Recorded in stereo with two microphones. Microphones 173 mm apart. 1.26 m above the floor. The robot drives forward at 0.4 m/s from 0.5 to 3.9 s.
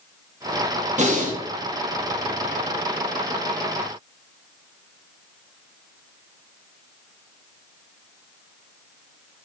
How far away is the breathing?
About 1.5 m.